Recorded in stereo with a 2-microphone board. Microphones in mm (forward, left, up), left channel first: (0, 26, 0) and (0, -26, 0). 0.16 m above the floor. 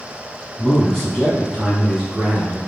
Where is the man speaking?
10° left (ahead or behind), 1.8 m; by 2.6 s 20° right (ahead or behind), 1.8 m.